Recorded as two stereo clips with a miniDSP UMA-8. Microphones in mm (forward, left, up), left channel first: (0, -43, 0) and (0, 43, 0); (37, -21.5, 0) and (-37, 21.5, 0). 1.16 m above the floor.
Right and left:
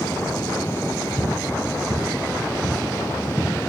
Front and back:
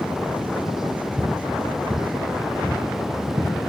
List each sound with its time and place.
1.2 s footsteps: 115° right, 2.5 m; by 3.5 s 160° right, 2 m